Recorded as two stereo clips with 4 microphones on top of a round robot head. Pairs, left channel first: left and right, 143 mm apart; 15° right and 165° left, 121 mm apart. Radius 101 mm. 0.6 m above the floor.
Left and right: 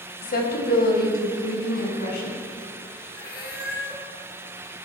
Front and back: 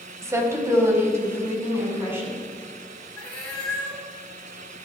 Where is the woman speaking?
100° left, 2.5 m.